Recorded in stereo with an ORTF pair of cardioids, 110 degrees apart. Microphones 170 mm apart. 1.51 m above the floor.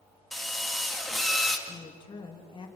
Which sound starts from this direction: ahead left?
A woman speaking, at 1.7 s.